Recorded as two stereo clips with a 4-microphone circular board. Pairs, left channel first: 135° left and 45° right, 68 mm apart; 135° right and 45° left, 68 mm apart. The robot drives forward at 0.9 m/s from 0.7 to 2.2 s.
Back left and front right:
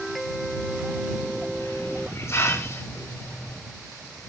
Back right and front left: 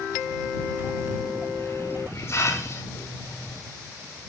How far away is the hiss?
About 4.5 m.